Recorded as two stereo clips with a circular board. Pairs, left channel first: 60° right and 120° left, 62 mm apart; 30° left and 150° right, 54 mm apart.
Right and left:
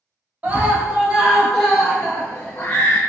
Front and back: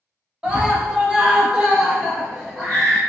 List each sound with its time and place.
0.4 s a scream: 155° left, 1.2 m; by 3.0 s 55° right, 1.2 m